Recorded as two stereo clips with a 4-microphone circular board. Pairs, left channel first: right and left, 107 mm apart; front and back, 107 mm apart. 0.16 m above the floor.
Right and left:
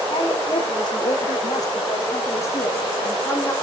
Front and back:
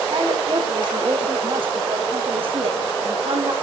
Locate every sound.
0.1 s a woman speaking: 130° right, 8 m; by 3.5 s 160° right, 5.5 m